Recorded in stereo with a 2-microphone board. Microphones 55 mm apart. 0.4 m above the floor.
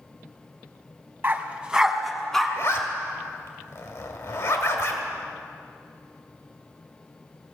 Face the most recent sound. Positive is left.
turn(degrees=60)  # may be behind; listen again after turning